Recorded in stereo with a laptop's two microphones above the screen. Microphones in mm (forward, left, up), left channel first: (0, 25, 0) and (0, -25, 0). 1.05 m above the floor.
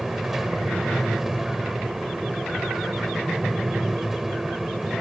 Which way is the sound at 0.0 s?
5° right (ahead or behind).